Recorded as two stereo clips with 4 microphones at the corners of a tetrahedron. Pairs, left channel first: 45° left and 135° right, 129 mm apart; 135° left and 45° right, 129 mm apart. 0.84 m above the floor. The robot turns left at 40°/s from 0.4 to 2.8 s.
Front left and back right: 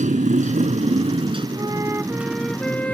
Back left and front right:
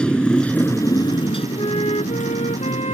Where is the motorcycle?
140° right; by 2.9 s 120° left.